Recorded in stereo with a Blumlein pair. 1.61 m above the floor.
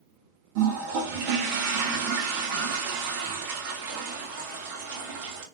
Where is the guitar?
I don't hear a guitar.